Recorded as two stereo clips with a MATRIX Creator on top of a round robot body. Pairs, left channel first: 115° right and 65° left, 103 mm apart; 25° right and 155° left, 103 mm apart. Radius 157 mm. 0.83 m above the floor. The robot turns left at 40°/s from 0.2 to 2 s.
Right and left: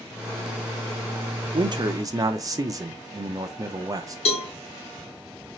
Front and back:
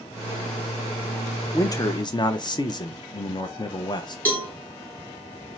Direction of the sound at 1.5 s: 35° left.